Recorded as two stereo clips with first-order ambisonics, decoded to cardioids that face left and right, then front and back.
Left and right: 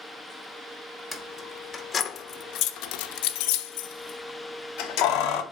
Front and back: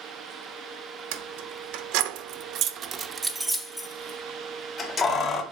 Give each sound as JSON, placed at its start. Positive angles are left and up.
{"t": 1.1, "sound": "keys jangling", "azimuth_deg": 175, "distance_m": 1.2}